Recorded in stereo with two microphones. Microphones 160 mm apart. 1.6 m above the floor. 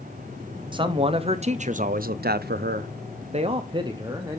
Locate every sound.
0.7 s a man speaking: 30° right (ahead or behind), 1.1 m; by 4.4 s 20° right (ahead or behind), 1.2 m